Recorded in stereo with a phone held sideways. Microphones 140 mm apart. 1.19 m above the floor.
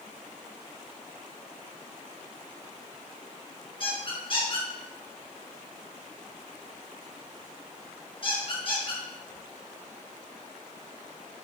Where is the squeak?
40° left (ahead or behind), 5 m.